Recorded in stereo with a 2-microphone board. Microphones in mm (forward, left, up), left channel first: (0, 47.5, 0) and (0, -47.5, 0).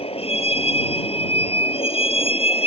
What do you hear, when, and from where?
0.0 s a vehicle: 85° left